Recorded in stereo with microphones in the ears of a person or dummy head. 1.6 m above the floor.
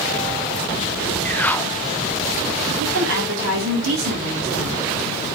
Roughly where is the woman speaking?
Right.